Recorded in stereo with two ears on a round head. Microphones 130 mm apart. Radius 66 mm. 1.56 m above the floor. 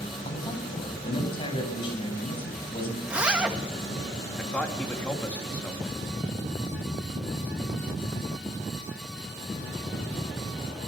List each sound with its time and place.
0.2 s a man speaking: 35° left (ahead or behind), 8 m
3.0 s a zipper: 10° right (ahead or behind), 1.8 m
4.4 s a man speaking: 10° left (ahead or behind), 3 m